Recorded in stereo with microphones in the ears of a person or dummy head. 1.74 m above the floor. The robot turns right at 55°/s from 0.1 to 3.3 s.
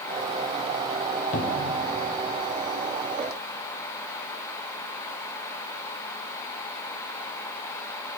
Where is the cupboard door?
40° left (ahead or behind), 1.0 m; by 1.8 s 65° left (ahead or behind), 1.0 m.